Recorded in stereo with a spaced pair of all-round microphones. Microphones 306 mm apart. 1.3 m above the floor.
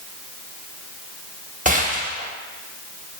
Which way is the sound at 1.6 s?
25° right (ahead or behind).